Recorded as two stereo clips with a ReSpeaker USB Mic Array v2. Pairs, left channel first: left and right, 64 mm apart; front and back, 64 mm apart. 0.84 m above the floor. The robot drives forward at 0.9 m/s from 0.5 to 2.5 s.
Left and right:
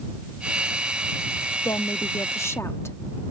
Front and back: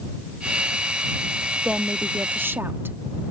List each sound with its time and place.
1.6 s a woman speaking: 100° left; by 3.0 s 130° left